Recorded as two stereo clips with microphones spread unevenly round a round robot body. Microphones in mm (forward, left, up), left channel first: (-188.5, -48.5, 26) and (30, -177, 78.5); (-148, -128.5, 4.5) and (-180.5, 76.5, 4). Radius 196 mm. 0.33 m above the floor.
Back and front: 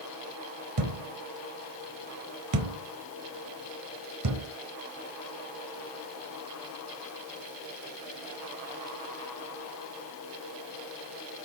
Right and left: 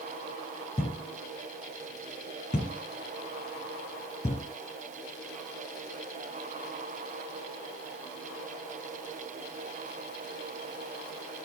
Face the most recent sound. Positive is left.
turn(degrees=-10)